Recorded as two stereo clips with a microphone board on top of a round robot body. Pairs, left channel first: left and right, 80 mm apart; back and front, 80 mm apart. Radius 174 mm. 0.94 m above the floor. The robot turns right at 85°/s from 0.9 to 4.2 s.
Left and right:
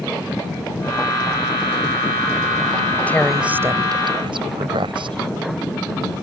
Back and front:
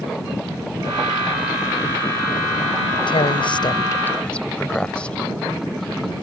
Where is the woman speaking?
160° left; by 5.2 s 105° right.